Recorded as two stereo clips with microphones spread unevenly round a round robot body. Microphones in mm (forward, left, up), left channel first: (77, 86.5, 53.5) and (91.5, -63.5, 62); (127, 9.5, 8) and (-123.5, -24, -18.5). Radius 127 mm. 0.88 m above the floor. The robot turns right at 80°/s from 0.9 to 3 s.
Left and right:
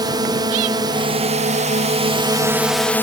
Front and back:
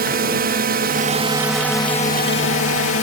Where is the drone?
140° right; by 3.0 s 25° left.